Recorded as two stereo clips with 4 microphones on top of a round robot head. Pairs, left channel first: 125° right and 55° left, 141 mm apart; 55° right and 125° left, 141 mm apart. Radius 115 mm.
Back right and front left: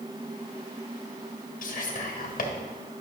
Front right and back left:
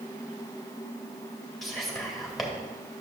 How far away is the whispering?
About 1.6 m.